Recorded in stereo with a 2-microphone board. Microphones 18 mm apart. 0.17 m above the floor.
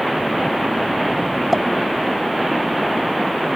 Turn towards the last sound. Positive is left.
turn(degrees=0)  # may be behind; listen again after turning